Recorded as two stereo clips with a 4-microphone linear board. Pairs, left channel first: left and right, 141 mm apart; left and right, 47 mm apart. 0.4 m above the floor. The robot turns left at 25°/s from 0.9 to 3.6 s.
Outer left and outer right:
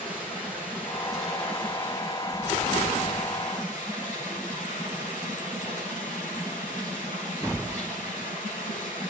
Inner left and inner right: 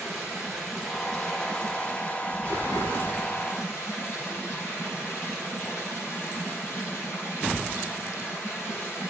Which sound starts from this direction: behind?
Running water, at 0.0 s.